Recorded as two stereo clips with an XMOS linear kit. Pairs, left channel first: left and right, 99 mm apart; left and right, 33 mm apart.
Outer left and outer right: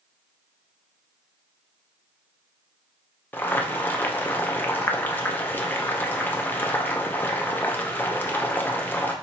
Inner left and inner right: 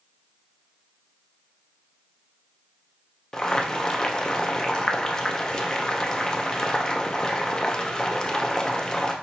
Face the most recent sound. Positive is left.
turn(degrees=20)  # may be behind; listen again after turning